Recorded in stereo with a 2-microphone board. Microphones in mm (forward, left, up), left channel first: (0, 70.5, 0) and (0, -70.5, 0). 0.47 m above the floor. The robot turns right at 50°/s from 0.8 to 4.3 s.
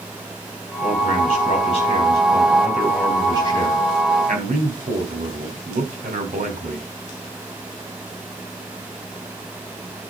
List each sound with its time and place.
0.8 s a man speaking: 85° left, 4 m; by 6.9 s 105° right, 4 m